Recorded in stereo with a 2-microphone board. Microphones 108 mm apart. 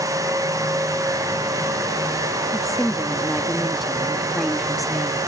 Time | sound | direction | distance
2.5 | a woman speaking | centre (ahead or behind) | ?